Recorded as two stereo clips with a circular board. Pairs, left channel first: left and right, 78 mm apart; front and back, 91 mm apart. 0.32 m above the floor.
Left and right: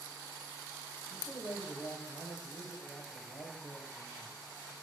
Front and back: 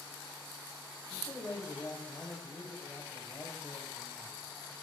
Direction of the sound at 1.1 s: 60° left.